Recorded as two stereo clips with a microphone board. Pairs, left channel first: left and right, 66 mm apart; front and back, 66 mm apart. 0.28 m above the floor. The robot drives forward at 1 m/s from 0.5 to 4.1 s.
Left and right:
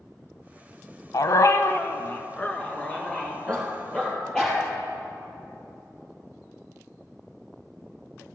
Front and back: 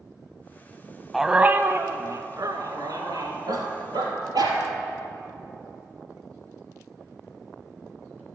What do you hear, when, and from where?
1.1 s a dog barking: 90° left, 0.6 m; by 4.6 s 170° left, 3 m